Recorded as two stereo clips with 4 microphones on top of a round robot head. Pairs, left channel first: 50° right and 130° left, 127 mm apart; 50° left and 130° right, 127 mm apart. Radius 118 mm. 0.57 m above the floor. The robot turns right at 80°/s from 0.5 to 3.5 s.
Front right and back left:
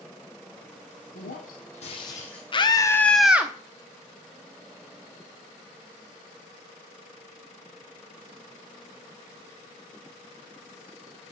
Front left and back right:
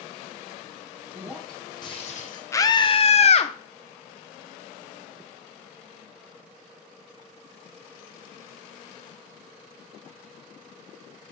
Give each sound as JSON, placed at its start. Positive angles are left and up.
{"t": 1.1, "sound": "breaking glass", "azimuth_deg": -65, "distance_m": 2.0}
{"t": 2.5, "sound": "a scream", "azimuth_deg": -15, "distance_m": 1.0}